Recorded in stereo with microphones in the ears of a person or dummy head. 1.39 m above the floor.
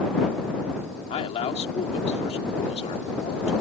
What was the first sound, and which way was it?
A man speaking, 30° left (ahead or behind).